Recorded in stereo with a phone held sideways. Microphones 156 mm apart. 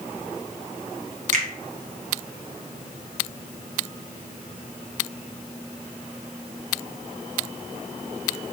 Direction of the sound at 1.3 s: 55° right (ahead or behind).